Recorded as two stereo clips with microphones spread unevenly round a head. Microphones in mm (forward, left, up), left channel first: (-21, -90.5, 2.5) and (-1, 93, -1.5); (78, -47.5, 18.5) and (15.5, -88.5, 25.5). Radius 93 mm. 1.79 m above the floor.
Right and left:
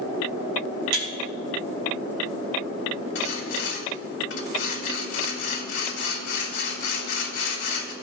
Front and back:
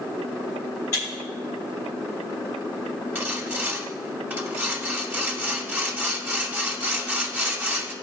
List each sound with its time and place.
0.9 s breaking glass: 105° left, 3 m
3.1 s sawing: 85° right, 2.5 m